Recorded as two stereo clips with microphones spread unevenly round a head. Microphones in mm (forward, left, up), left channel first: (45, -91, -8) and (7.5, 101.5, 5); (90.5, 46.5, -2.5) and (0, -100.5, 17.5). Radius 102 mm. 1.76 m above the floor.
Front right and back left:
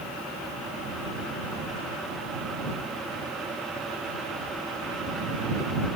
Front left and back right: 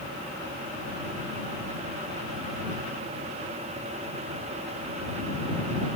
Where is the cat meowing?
No cat meowing in this recording.